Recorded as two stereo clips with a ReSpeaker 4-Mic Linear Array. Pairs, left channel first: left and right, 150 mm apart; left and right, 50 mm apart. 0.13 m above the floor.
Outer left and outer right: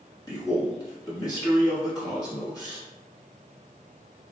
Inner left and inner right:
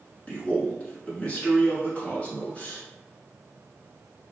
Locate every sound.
0.3 s a man speaking: 25° left (ahead or behind), 1.1 m